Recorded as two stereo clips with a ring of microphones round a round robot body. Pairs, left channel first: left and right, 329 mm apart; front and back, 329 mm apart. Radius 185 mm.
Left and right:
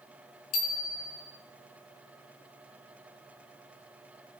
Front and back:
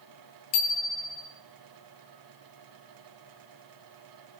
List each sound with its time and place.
0.5 s a bicycle bell: 35° left, 2.5 m